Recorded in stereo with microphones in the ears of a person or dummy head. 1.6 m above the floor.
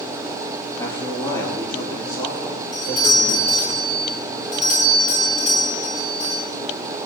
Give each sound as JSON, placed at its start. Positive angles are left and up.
{"t": 0.8, "sound": "a man speaking", "side_deg": 15, "distance_m": 2.0}
{"t": 2.7, "sound": "a doorbell", "side_deg": 40, "distance_m": 3.0}